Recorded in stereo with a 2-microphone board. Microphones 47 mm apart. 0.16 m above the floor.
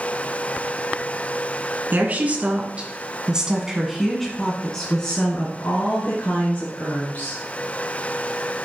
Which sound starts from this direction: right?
A woman speaking, at 1.9 s.